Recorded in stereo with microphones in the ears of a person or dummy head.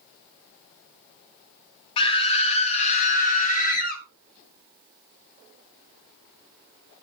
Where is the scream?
35° left (ahead or behind), 2 m; by 4.0 s 55° left (ahead or behind), 3 m.